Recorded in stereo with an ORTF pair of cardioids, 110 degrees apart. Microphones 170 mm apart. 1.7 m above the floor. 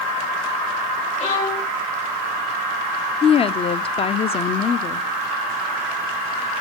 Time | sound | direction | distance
1.2 | a violin | 45° left | 4 m
3.2 | a woman speaking | 35° left | 0.6 m